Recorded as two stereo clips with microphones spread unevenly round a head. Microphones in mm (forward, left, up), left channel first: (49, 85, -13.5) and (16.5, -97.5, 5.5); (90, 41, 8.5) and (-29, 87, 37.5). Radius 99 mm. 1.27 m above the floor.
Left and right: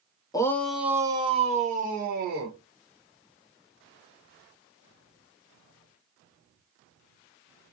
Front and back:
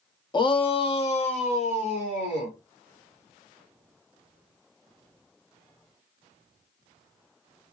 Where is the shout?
15° left, 0.7 m; by 2.5 s 65° right, 1.4 m.